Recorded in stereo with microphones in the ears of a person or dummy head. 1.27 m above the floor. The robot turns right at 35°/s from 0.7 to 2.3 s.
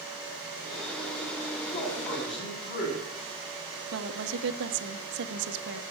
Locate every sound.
1.7 s a man speaking: 55° left (ahead or behind), 9.5 m; by 3.1 s 35° left (ahead or behind), 9.5 m
3.9 s a woman speaking: 65° right (ahead or behind), 1.2 m